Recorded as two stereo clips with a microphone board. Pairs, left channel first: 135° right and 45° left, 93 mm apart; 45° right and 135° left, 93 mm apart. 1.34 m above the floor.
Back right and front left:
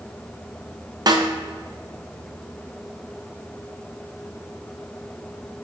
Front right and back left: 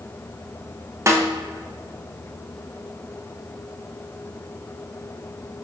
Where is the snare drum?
80° left, 0.7 m.